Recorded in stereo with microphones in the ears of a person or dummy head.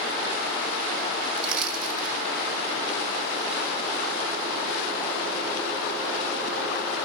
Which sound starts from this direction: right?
Crushing, at 1.4 s.